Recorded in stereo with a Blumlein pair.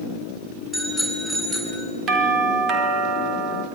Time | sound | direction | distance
0.7 | a bicycle bell | 5° right | 9 m
2.1 | a doorbell | 25° right | 4 m